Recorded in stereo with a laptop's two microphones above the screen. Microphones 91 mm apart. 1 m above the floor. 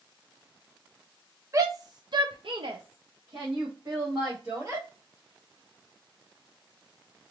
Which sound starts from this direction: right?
A shout, at 1.5 s.